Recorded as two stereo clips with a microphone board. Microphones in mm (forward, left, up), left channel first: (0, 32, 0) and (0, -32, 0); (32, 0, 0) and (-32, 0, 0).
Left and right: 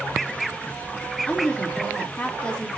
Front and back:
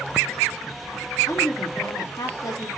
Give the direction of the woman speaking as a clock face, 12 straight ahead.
11 o'clock.